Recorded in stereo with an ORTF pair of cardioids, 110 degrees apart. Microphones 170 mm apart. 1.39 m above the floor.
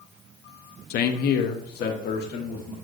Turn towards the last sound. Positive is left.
turn(degrees=70)